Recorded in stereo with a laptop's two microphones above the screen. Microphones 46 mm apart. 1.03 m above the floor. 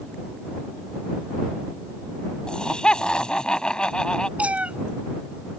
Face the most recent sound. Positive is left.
turn(degrees=-30)  # may be behind; listen again after turning